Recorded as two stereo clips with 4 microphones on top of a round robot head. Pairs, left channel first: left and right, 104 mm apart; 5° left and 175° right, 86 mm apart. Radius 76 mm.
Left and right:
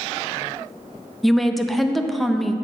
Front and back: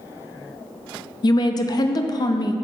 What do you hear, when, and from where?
1.2 s a woman speaking: straight ahead, 0.5 m